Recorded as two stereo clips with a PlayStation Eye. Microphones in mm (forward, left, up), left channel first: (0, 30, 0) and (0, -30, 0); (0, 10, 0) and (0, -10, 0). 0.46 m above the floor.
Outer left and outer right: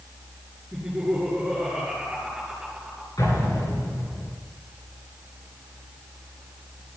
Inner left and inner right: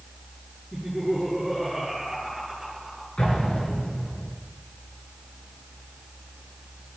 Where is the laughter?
10° right (ahead or behind), 6 m.